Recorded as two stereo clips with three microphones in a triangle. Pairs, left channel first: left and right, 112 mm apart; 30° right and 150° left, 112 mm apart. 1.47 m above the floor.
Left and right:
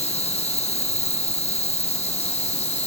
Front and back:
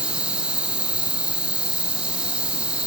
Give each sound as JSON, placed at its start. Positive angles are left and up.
{"t": 0.0, "sound": "an insect", "azimuth_deg": 70}